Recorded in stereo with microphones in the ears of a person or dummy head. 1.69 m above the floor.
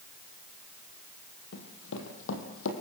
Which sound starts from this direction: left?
Running footsteps, at 1.5 s.